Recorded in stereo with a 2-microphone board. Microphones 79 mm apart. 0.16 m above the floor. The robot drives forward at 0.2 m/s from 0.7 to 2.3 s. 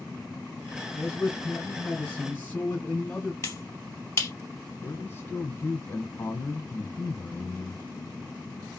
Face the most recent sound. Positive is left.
turn(degrees=30)  # may be behind; listen again after turning